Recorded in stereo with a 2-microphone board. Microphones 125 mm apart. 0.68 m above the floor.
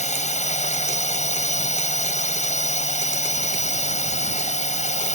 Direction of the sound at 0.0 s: 70° left (ahead or behind).